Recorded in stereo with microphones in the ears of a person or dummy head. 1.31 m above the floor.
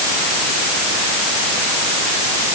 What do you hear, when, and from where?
Only background noise.